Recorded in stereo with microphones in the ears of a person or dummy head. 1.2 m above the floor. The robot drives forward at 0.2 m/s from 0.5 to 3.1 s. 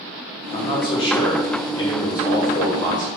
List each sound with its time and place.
0.5 s a man speaking: 35° left (ahead or behind), 1.4 m; by 3.1 s 25° left (ahead or behind), 1.8 m